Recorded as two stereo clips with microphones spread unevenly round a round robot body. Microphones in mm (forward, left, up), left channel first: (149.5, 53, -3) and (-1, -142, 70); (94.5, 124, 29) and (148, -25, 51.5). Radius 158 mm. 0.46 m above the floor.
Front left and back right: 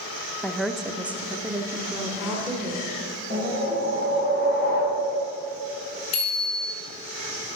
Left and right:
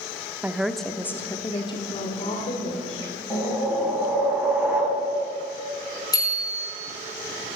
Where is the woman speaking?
15° left, 0.8 m; by 4.2 s 155° left, 2.5 m.